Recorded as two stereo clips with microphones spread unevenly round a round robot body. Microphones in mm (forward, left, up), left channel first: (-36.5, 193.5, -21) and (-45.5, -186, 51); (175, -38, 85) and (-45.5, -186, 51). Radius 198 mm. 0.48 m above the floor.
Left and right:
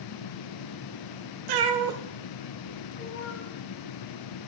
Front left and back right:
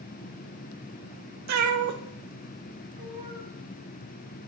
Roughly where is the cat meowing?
Behind right.